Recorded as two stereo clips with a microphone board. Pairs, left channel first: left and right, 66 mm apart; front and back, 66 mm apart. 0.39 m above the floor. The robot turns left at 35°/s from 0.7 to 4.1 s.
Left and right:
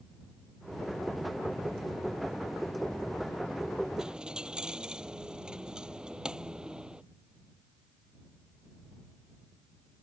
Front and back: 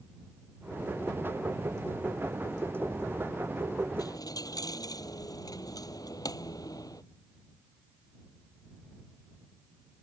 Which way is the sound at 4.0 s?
10° right.